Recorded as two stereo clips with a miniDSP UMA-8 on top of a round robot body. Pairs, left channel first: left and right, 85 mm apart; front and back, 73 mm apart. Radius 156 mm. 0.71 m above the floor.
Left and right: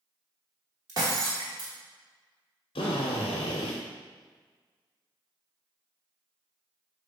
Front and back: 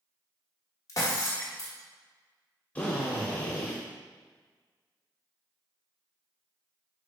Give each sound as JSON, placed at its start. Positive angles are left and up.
{"t": 0.9, "sound": "breaking glass", "azimuth_deg": -45, "distance_m": 1.3}
{"t": 2.8, "sound": "a drill", "azimuth_deg": 75, "distance_m": 0.6}